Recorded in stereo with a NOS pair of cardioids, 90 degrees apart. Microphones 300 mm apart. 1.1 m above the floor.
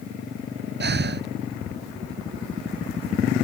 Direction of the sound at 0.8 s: 35° right.